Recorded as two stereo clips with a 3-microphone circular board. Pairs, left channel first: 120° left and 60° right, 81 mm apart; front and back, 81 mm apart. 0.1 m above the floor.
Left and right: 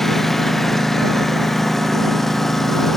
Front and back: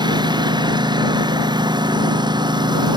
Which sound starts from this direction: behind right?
A lawn mower, at 0.0 s.